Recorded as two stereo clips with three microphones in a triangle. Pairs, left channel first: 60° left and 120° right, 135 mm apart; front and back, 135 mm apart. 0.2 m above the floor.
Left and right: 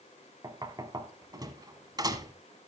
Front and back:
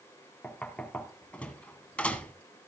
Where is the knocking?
75° right, 1.3 m.